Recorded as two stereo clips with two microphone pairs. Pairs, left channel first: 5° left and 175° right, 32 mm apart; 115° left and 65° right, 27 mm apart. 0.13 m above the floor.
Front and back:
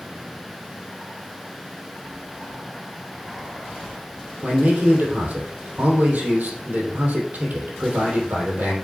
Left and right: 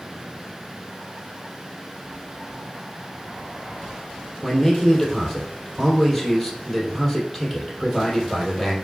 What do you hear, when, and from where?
4.4 s a man speaking: 160° right, 3 m